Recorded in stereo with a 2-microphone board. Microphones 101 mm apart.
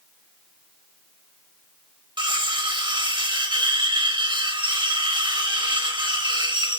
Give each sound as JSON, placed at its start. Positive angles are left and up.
{"t": 2.2, "sound": "cutlery clinking", "side_deg": -50, "distance_m": 0.7}